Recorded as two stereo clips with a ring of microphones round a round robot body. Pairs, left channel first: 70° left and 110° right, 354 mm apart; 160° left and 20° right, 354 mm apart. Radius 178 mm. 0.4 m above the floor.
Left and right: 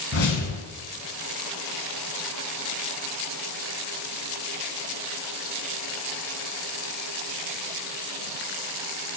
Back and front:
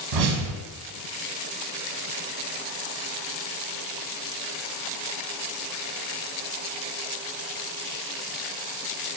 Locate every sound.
0.1 s a whoosh: 5° left, 0.8 m